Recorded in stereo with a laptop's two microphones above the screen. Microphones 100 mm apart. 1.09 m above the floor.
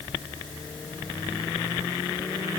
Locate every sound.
Only background noise.